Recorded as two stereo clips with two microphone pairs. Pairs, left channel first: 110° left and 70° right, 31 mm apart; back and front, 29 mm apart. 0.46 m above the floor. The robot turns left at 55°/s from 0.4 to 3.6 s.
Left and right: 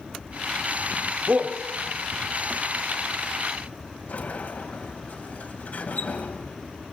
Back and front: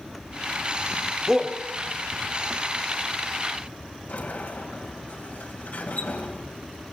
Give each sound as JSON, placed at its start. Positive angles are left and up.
{"t": 1.3, "sound": "a shout", "azimuth_deg": -75, "distance_m": 1.7}
{"t": 4.1, "sound": "a sliding door", "azimuth_deg": 155, "distance_m": 2.0}